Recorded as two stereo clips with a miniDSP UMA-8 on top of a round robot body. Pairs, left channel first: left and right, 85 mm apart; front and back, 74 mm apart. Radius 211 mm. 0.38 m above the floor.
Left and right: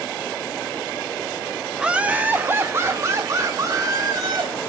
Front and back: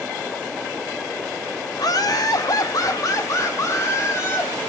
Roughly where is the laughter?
Ahead.